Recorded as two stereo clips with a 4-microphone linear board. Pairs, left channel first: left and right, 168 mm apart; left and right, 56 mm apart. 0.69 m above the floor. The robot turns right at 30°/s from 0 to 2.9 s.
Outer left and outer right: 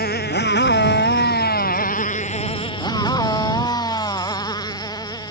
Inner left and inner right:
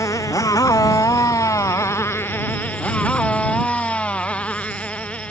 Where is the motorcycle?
65° left (ahead or behind); by 5.3 s 25° left (ahead or behind).